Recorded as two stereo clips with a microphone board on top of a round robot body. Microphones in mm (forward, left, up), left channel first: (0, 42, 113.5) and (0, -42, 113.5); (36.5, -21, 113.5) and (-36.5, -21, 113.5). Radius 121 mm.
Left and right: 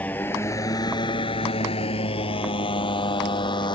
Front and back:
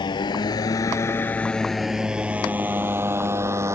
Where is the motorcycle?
15° left; by 3.8 s 125° left.